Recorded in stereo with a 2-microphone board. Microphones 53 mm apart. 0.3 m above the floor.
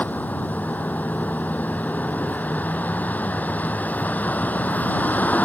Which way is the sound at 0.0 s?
35° left (ahead or behind).